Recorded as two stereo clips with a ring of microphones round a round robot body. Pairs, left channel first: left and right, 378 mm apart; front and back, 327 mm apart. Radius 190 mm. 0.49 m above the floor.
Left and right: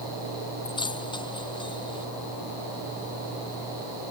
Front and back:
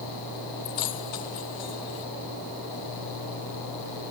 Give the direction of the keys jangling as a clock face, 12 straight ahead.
12 o'clock.